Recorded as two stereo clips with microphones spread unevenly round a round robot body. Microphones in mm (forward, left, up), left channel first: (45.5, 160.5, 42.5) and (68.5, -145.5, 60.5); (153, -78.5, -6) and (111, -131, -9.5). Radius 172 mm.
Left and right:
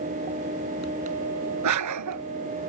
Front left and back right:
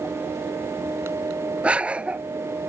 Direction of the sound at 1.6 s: 55° right.